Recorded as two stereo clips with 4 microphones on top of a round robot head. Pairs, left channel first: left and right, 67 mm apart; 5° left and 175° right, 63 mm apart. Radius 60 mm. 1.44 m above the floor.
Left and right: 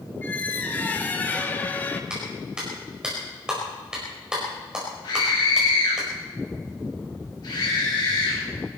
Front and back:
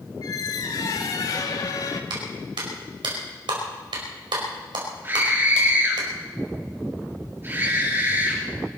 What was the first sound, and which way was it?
A squeak, 30° left.